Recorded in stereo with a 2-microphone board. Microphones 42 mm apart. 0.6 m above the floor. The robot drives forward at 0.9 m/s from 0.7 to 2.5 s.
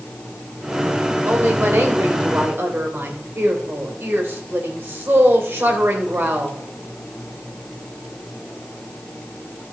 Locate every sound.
1.3 s a woman speaking: 70° right (ahead or behind), 3 m; by 6.6 s 65° right (ahead or behind), 3 m